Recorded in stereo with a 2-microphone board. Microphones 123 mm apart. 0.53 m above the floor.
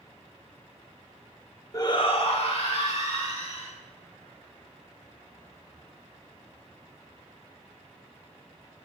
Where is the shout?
25° left (ahead or behind), 0.7 m; by 3.7 s 65° left (ahead or behind), 3 m.